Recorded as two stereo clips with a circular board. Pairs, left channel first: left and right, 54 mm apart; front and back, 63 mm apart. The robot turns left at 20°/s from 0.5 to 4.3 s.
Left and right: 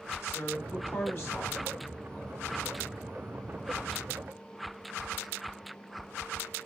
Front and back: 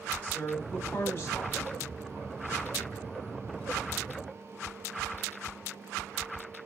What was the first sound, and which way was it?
A woman speaking, 65° left.